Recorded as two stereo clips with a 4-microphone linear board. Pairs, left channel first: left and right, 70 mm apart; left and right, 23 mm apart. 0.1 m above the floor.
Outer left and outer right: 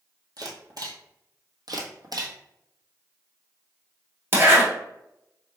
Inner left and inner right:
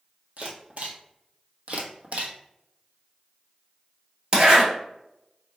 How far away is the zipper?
About 1.6 m.